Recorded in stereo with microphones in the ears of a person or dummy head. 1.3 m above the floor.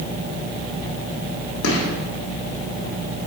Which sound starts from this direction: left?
A gunshot, at 1.6 s.